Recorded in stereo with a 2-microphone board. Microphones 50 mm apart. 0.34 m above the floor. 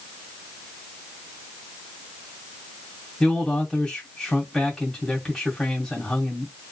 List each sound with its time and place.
3.2 s a man speaking: 10° left (ahead or behind), 2.5 m